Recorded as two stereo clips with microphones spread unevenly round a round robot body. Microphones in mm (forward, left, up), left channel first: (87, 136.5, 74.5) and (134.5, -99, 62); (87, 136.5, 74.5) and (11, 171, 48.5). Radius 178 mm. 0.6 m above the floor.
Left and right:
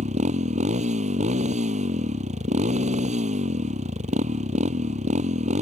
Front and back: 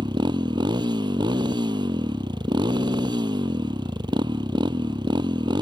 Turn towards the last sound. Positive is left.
turn(degrees=-150)